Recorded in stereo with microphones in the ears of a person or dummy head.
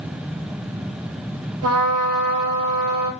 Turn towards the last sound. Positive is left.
turn(degrees=-70)  # may be behind; listen again after turning